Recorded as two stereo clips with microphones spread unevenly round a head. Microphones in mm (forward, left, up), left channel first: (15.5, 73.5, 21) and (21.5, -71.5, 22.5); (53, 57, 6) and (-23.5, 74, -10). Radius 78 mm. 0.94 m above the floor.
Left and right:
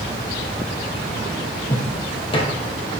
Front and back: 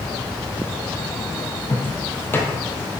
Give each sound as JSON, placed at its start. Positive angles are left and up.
{"t": 1.7, "sound": "footsteps", "azimuth_deg": 40, "distance_m": 1.9}